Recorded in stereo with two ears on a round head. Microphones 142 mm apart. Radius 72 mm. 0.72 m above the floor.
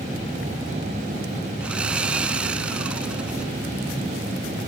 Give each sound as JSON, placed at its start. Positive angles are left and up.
{"t": 1.6, "sound": "sawing", "side_deg": -5, "distance_m": 1.1}